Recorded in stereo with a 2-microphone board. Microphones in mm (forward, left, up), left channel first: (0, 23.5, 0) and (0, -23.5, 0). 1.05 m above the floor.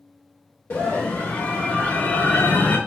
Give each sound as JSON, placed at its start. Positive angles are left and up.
{"t": 0.7, "sound": "a scream", "side_deg": 65, "distance_m": 1.4}